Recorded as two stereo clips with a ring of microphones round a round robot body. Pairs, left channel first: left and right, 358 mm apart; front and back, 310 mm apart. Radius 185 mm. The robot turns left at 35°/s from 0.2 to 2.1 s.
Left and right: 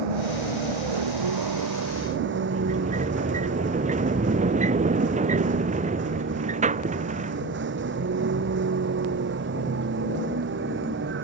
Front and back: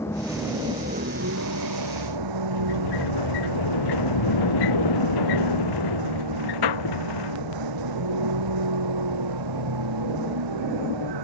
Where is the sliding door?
20° right.